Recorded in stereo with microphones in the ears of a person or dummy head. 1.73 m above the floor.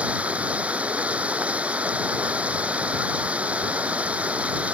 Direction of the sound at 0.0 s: 10° right (ahead or behind).